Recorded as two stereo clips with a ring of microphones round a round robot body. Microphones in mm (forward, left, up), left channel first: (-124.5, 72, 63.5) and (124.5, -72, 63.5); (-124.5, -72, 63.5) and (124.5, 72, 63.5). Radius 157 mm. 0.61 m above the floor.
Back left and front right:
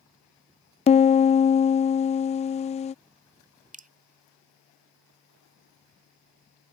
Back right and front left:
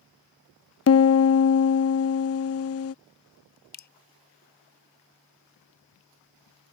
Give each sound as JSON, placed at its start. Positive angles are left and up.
{"t": 0.9, "sound": "a piano", "azimuth_deg": -150}
{"t": 3.7, "sound": "dripping", "azimuth_deg": -95}